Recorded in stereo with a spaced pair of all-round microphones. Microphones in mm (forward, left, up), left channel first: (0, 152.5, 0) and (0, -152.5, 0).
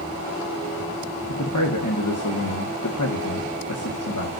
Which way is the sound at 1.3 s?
75° left (ahead or behind).